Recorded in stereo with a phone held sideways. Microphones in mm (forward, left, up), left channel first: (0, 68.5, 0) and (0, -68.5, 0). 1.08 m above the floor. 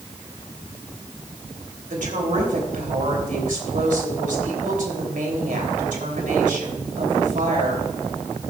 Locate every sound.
1.9 s a woman speaking: 75° right (ahead or behind), 3 m